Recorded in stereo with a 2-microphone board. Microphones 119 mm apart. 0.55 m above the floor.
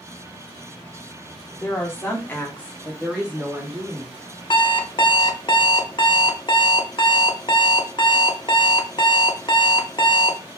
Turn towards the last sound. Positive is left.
turn(degrees=40)  # may be behind; listen again after turning